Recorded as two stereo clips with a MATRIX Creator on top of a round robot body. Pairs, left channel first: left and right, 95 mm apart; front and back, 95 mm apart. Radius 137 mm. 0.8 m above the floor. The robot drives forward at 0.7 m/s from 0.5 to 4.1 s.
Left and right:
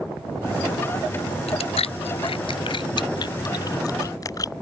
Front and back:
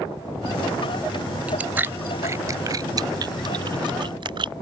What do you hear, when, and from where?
1.5 s chewing: 100° left; by 4.5 s 145° left